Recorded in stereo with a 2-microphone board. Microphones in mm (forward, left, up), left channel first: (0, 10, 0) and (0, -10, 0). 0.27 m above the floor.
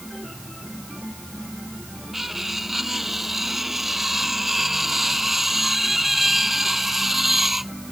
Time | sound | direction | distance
2.1 | cutlery clinking | 15° right (ahead or behind) | ?